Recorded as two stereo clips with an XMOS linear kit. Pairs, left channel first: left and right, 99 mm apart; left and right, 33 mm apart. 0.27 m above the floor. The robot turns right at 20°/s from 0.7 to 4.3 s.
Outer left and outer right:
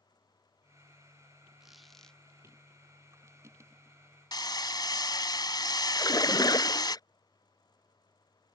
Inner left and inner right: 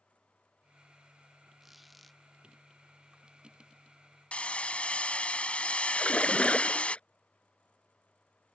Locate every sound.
1.6 s a squeak: 5° right (ahead or behind); by 2.2 s 10° left (ahead or behind)
4.3 s hammering: 45° left (ahead or behind)
6.0 s a splash: 40° left (ahead or behind)